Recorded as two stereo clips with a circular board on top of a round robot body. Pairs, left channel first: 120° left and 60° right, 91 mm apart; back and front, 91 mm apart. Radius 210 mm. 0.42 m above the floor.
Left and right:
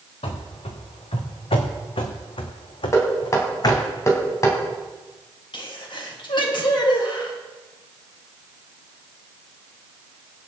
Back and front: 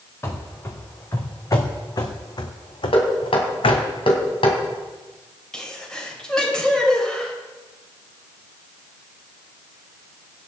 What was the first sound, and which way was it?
Running footsteps, 120° left.